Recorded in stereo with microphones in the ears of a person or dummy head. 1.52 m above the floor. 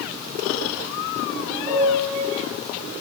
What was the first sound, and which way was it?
A piano, 20° right (ahead or behind).